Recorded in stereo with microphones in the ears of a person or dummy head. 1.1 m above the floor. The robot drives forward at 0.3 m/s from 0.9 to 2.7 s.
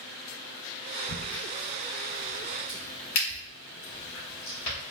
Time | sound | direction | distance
1.1 | a crack | 70° left (ahead or behind) | 1.7 m